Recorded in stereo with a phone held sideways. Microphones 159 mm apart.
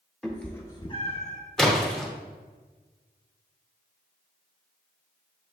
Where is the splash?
5° left (ahead or behind), 0.8 m.